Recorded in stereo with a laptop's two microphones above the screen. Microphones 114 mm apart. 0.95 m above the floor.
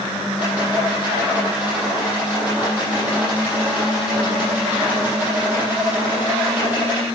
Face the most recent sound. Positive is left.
turn(degrees=-10)  # may be behind; listen again after turning